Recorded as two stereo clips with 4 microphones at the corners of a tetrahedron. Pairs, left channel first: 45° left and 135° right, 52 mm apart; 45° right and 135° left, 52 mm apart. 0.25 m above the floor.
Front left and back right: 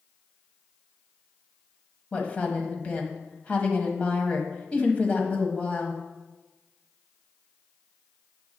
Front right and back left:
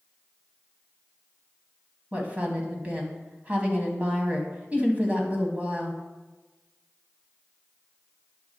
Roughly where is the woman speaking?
Left.